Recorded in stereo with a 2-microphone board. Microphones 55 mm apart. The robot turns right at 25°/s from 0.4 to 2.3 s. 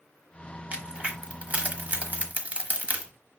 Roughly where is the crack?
Right.